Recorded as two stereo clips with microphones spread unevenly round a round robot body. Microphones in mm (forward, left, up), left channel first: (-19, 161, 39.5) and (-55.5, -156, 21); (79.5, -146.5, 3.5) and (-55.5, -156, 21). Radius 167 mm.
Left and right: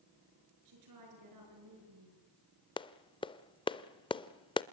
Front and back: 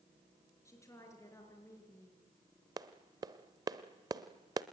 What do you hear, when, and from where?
0.7 s a woman speaking: 65° right, 5.5 m
2.8 s a clap: 145° left, 0.6 m